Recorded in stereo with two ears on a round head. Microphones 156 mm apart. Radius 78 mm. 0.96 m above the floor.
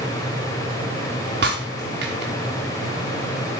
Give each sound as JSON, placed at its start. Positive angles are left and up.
{"t": 1.4, "sound": "breaking glass", "side_deg": -65, "distance_m": 4.5}